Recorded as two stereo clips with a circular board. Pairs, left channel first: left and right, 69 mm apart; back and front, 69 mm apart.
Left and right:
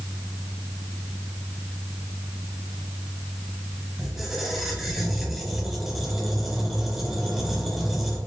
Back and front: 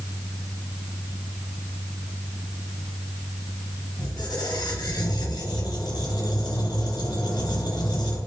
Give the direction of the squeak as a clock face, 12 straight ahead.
6 o'clock.